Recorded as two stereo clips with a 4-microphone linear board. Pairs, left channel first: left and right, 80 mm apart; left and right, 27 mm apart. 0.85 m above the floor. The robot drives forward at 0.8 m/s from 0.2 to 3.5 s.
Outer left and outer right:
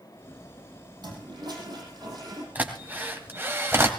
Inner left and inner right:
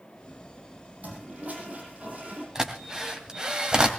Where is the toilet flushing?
65° right (ahead or behind), 7 m; by 2.5 s 55° right (ahead or behind), 7.5 m.